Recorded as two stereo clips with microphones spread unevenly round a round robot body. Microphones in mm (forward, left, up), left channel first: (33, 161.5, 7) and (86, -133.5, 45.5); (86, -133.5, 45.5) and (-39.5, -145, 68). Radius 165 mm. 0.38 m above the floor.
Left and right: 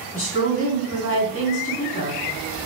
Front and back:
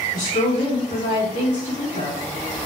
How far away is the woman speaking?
About 3 m.